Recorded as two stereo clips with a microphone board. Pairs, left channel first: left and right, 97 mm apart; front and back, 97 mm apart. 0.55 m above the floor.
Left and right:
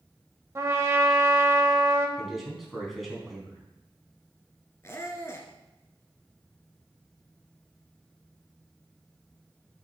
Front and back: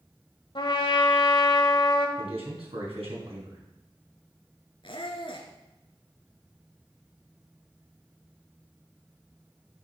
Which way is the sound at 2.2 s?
Straight behind.